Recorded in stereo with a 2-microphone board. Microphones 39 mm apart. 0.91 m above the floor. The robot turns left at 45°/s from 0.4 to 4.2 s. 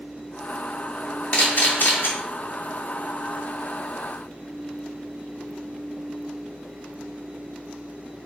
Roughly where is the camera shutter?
Left.